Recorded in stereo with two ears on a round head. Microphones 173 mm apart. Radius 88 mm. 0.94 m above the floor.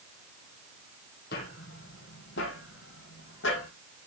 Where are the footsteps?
55° left (ahead or behind), 2 m; by 3.7 s 70° left (ahead or behind), 2.5 m.